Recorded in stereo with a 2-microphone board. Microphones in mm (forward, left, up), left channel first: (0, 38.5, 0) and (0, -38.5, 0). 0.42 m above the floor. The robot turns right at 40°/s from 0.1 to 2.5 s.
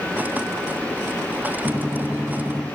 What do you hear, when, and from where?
1.6 s a gunshot: 75° right, 1.1 m; by 2.6 s 40° right, 1.1 m